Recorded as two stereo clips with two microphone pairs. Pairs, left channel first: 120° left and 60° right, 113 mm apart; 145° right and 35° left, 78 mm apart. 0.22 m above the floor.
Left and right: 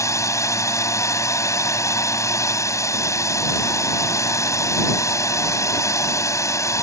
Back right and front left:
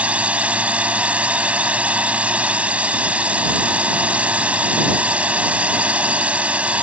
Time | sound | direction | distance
0.0 | a drone | 90° left | ?